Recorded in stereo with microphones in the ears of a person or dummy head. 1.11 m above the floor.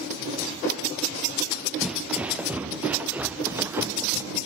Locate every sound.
1.8 s footsteps: 5° right (ahead or behind); by 4.3 s 15° right (ahead or behind)